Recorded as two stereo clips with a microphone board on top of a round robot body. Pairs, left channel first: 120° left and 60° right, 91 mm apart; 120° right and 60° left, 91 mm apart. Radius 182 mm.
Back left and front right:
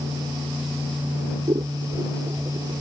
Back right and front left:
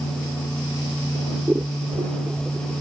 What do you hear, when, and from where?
1.5 s scissors: 10° right